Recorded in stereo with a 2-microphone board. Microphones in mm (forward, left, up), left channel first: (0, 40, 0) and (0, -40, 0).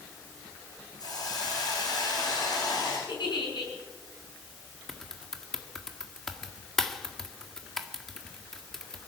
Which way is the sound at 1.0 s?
55° left (ahead or behind).